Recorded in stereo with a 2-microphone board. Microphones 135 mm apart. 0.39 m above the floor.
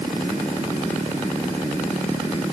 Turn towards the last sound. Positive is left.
No sound to turn to.